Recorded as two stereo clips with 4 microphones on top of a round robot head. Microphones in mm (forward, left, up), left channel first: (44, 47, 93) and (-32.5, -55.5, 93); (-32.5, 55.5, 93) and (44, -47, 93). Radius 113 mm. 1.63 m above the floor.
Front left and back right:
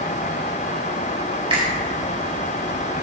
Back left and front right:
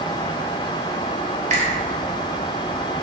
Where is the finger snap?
80° right, 4 m.